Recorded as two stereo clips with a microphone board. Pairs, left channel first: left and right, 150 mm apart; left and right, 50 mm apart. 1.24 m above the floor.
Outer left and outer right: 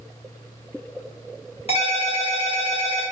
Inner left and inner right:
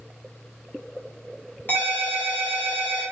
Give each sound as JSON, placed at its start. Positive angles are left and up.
{"t": 1.7, "sound": "a ringtone", "side_deg": 45, "distance_m": 1.0}